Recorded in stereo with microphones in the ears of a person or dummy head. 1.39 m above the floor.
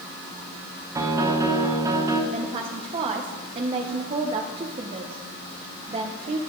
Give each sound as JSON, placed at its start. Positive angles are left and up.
{"t": 0.9, "sound": "a piano", "side_deg": -20, "distance_m": 0.9}
{"t": 2.3, "sound": "a woman speaking", "side_deg": -30, "distance_m": 0.8}